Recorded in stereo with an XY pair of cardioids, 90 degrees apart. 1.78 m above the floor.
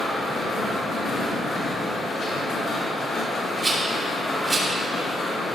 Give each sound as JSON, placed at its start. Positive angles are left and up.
{"t": 0.0, "sound": "a machine running", "azimuth_deg": 70, "distance_m": 3.5}
{"t": 3.6, "sound": "a rattle", "azimuth_deg": -30, "distance_m": 3.0}